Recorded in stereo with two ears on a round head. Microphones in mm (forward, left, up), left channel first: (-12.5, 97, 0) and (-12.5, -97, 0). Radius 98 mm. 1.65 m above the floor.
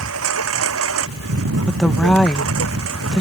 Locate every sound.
0.0 s a lawn mower: 75° right (ahead or behind)
1.7 s a woman speaking: 5° left (ahead or behind)